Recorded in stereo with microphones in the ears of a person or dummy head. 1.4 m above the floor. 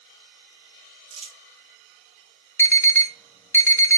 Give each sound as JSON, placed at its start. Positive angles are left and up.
{"t": 1.1, "sound": "crumpling", "side_deg": -30, "distance_m": 1.0}
{"t": 2.6, "sound": "an alarm", "side_deg": 10, "distance_m": 0.5}